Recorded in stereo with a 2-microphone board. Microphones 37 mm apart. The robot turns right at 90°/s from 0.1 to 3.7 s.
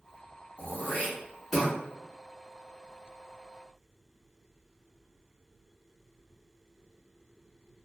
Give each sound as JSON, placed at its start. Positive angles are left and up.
{"t": 0.6, "sound": "throat clearing", "side_deg": 70, "distance_m": 1.5}